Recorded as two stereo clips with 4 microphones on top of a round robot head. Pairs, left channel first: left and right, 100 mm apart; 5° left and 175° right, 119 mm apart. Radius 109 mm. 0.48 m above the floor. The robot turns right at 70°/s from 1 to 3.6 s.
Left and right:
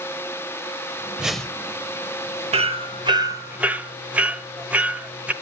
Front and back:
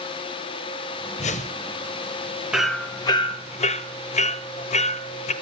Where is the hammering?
90° right, 1.1 m; by 5.3 s 15° right, 1.1 m.